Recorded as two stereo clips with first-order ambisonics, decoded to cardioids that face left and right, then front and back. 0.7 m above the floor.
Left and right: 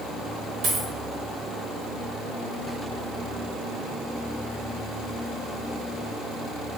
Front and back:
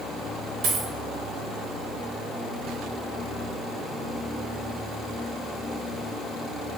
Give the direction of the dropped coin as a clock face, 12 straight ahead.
5 o'clock.